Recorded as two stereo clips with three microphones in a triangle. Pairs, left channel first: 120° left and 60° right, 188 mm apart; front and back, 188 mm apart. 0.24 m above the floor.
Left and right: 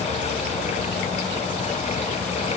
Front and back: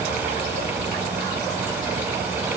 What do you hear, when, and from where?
Only background noise.